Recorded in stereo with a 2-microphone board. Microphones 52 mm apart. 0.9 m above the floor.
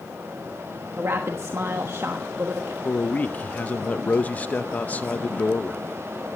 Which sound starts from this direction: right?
A woman speaking, at 1.0 s.